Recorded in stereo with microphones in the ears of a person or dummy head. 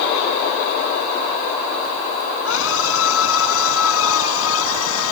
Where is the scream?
75° left (ahead or behind); by 5.1 s 80° left.